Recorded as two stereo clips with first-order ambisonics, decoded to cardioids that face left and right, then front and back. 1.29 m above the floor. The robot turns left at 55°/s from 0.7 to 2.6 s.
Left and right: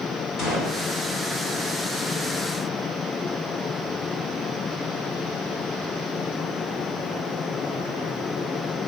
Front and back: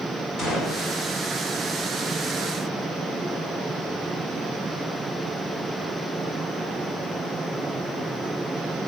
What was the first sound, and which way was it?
A gunshot, 35° left.